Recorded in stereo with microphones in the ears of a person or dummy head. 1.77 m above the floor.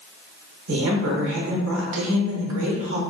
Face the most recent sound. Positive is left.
turn(degrees=-70)  # may be behind; listen again after turning